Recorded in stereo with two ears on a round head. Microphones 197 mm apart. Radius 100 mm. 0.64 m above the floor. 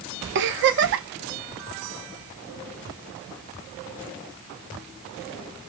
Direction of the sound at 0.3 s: 55° right (ahead or behind).